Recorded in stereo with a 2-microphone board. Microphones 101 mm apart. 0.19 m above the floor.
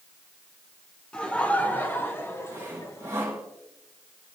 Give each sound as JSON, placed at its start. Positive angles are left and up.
{"t": 1.1, "sound": "laughter", "side_deg": 10, "distance_m": 2.0}
{"t": 2.5, "sound": "sawing", "side_deg": -30, "distance_m": 4.5}